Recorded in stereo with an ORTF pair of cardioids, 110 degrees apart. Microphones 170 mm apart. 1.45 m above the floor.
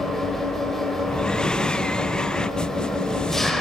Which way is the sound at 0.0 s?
Straight ahead.